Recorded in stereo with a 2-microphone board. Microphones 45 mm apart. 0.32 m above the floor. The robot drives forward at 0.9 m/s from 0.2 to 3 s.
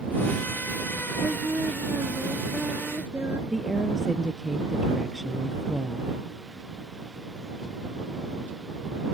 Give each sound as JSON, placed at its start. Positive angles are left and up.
{"t": 1.2, "sound": "singing", "side_deg": -75}
{"t": 3.5, "sound": "a woman speaking", "side_deg": -10}